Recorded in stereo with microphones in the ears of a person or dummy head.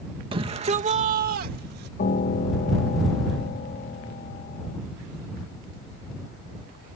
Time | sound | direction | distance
0.3 | a shout | 25° right (ahead or behind) | ?
2.0 | a piano | 40° left (ahead or behind) | ?